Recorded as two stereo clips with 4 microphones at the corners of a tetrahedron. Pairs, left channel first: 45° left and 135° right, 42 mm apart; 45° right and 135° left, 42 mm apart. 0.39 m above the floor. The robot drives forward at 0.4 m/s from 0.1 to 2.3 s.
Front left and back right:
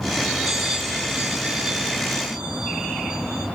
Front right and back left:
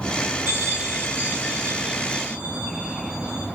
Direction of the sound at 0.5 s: 145° left.